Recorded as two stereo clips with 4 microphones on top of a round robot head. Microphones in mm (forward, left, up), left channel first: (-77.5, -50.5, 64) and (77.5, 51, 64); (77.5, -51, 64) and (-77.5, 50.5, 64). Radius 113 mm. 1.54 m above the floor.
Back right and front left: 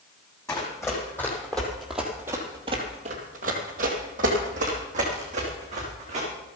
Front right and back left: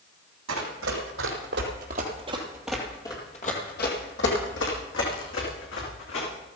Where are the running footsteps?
140° left, 3.5 m; by 6.3 s 20° right, 5.5 m.